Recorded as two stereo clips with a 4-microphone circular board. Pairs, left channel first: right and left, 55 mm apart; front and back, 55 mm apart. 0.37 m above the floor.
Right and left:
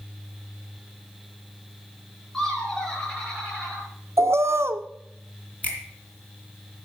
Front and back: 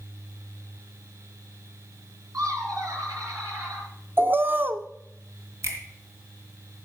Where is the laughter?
170° right, 5 m; by 3.9 s 165° right, 7 m.